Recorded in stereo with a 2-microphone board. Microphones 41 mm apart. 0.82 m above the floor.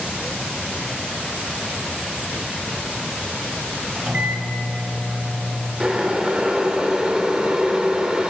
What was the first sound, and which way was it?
A microwave, 25° right (ahead or behind).